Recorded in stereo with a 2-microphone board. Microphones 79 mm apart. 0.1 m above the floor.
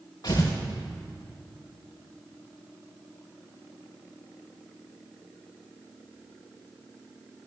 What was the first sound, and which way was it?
Tearing paper, 50° left (ahead or behind).